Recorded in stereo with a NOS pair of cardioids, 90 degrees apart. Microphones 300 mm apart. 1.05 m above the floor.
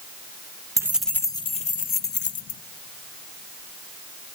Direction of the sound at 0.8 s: 10° right.